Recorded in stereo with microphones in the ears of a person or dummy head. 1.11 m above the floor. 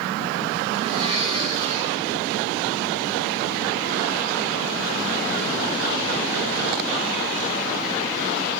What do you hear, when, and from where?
0.7 s a blender: 35° right (ahead or behind), 5 m